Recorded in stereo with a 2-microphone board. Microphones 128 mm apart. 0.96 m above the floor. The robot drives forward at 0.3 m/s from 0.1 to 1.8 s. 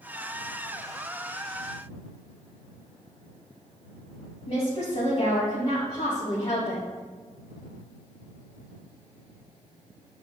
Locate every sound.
4.5 s a woman speaking: 65° left (ahead or behind), 3 m